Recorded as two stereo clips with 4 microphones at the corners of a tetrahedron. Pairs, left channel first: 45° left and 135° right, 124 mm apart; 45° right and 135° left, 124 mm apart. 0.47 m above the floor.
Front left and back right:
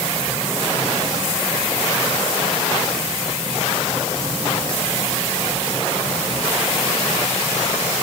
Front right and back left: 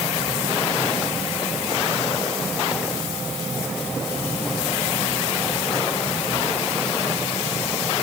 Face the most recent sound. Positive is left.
No sound to turn to.